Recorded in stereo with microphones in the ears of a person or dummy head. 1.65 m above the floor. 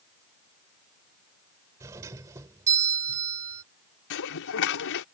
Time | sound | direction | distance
1.8 | a doorbell | 20° right (ahead or behind) | ?
4.1 | dishes clattering | 65° left (ahead or behind) | ?